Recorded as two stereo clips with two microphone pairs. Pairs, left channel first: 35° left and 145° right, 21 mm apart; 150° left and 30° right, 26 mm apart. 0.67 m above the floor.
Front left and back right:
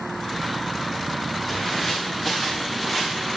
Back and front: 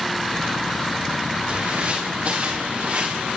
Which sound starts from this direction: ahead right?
Footsteps, at 1.5 s.